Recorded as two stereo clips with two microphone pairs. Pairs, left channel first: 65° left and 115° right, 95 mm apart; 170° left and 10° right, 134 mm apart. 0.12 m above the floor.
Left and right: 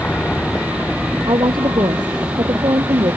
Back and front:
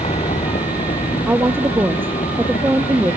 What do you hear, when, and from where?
0.0 s a vehicle: 140° left; by 3.2 s 175° left
1.3 s a woman speaking: 85° right